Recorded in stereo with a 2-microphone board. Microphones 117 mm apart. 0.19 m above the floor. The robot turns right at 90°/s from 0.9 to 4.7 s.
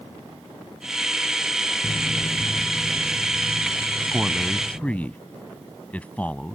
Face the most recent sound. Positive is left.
turn(degrees=15)  # may be behind; listen again after turning